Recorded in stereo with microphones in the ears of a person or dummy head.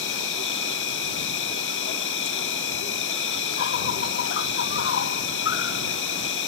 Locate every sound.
0.0 s an insect: 55° left (ahead or behind)